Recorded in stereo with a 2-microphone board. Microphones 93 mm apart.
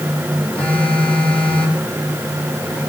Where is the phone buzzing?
15° left (ahead or behind), 8 m.